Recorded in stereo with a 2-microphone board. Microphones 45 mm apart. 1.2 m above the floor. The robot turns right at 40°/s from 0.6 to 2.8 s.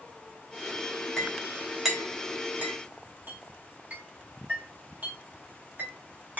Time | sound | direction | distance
1.2 | a clink | 20° left (ahead or behind) | 0.9 m